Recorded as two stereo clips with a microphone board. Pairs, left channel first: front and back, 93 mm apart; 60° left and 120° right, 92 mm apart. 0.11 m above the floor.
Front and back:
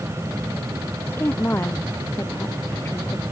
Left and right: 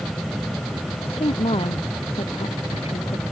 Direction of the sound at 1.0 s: 70° left.